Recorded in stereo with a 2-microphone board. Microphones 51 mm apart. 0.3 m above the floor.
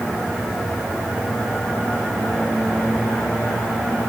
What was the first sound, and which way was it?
Only background noise.